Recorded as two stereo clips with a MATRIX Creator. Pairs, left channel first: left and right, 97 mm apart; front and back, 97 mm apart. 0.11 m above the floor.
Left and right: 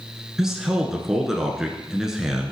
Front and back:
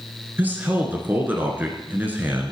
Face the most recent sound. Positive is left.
turn(degrees=-165)